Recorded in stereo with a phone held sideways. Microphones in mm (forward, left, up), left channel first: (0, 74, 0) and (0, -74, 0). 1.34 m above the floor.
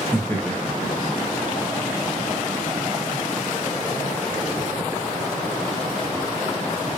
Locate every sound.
0.1 s laughter: 15° left (ahead or behind), 1.0 m; by 2.3 s 50° right (ahead or behind), 1.1 m